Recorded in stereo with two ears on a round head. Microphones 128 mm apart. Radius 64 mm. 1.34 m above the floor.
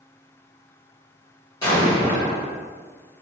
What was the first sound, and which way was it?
An explosion, 25° left (ahead or behind).